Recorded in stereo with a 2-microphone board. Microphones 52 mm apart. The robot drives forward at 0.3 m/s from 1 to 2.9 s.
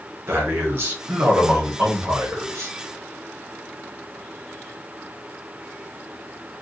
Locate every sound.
0.3 s a man speaking: 50° right (ahead or behind), 1.7 m; by 2.7 s 60° right (ahead or behind), 1.5 m